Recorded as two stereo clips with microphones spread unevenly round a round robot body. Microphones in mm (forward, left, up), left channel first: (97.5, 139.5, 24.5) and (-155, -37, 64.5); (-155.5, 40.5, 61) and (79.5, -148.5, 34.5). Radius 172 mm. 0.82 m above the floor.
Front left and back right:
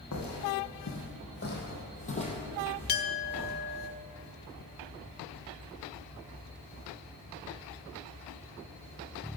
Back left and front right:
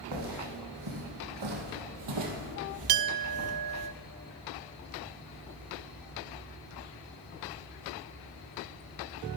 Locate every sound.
0.1 s footsteps: 20° right, 2.5 m; by 3.9 s 85° right, 1.3 m
2.9 s a clink: 25° right, 0.5 m